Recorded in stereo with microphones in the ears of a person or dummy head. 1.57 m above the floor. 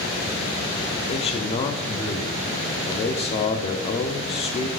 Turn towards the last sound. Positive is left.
turn(degrees=30)  # may be behind; listen again after turning